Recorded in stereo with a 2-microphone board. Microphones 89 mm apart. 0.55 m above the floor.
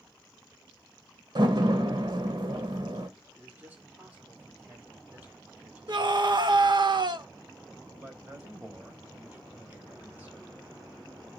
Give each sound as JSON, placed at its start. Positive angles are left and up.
{"t": 1.4, "sound": "a door slam", "side_deg": -60, "distance_m": 1.5}
{"t": 3.4, "sound": "a man speaking", "side_deg": -20, "distance_m": 1.7}
{"t": 5.9, "sound": "a scream", "side_deg": -60, "distance_m": 1.1}
{"t": 8.0, "sound": "a man speaking", "side_deg": -20, "distance_m": 3.5}